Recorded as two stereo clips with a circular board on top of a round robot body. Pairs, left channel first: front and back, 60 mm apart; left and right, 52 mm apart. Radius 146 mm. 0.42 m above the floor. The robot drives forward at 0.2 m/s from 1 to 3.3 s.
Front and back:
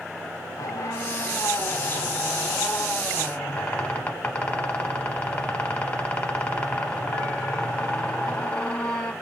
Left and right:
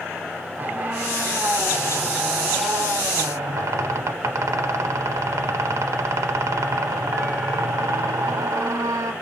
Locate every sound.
0.6 s a squeak: 35° right, 0.8 m; by 9.1 s 70° right, 0.5 m